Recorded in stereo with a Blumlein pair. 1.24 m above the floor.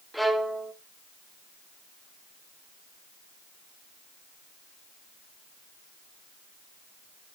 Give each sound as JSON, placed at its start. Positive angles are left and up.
{"t": 0.1, "sound": "a violin", "azimuth_deg": 0, "distance_m": 0.9}